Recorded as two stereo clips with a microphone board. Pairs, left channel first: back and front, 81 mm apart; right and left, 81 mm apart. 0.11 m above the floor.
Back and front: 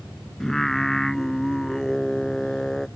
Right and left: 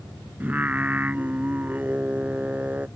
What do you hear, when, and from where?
0.4 s singing: 105° left